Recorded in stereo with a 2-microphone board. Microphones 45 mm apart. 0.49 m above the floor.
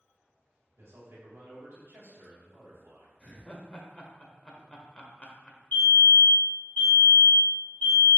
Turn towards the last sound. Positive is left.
turn(degrees=45)  # may be behind; listen again after turning